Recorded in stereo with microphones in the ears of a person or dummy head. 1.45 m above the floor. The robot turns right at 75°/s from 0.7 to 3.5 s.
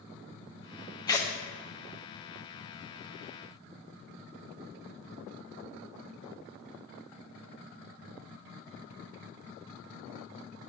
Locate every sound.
1.1 s tearing paper: 20° left (ahead or behind), 0.6 m; by 1.3 s 5° left (ahead or behind), 0.6 m